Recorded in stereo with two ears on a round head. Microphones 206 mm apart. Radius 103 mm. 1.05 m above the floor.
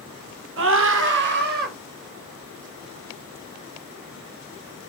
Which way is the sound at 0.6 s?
65° right (ahead or behind).